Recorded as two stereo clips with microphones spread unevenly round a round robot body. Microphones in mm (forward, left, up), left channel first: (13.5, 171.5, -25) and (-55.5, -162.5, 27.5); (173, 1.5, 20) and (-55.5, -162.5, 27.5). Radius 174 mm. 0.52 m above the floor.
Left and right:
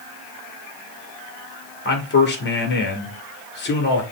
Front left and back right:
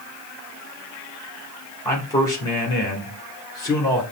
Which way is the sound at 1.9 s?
110° left.